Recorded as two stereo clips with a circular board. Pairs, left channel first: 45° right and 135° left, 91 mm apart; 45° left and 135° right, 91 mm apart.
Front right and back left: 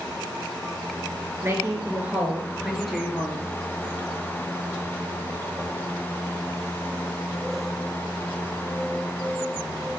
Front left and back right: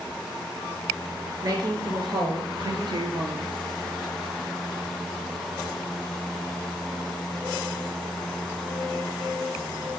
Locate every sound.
1.4 s a woman speaking: 165° right, 1.9 m; by 3.5 s 130° right, 2.5 m